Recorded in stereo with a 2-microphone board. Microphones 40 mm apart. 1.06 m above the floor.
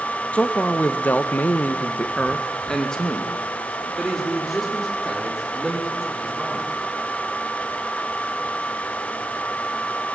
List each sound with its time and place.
0.3 s a man speaking: 30° left (ahead or behind), 1.7 m; by 6.7 s centre (ahead or behind), 5.5 m